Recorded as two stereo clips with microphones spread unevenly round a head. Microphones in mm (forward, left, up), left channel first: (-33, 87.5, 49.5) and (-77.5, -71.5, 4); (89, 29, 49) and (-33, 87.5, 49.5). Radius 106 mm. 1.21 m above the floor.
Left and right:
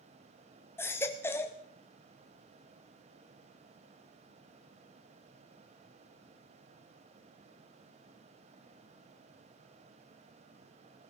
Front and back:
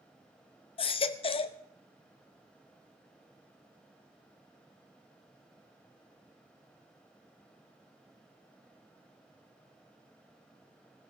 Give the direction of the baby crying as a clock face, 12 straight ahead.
12 o'clock.